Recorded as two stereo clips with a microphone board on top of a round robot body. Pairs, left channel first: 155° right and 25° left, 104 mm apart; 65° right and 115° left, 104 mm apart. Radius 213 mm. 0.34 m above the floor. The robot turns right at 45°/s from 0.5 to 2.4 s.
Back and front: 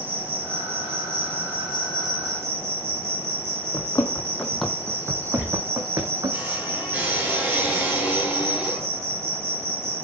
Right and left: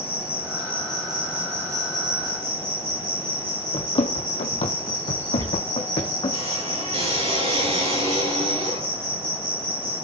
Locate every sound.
0.0 s an insect: straight ahead, 9 m; by 10.0 s 85° left, 9 m
3.7 s running footsteps: 100° right, 1.2 m; by 6.4 s 30° right, 2.0 m
5.4 s a squeak: 100° left, 8 m